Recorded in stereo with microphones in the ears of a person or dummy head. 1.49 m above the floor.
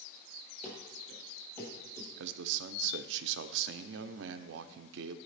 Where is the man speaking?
65° right (ahead or behind), 0.6 m.